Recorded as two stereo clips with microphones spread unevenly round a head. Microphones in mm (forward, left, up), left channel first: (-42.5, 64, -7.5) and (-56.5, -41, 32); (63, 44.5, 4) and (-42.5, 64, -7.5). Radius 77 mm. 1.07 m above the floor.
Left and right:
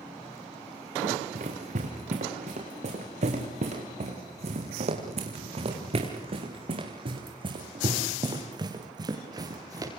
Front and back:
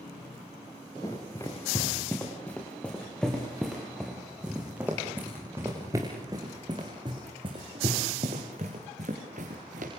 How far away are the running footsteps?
About 6 m.